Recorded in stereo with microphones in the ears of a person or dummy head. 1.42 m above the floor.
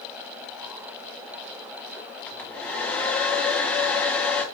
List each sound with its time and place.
2.3 s a hair dryer: 10° left (ahead or behind), 0.5 m